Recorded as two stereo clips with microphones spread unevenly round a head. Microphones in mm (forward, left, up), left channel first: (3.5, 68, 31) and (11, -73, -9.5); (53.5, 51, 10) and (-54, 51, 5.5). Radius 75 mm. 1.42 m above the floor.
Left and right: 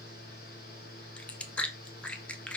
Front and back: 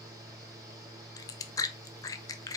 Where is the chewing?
35° left, 0.5 m.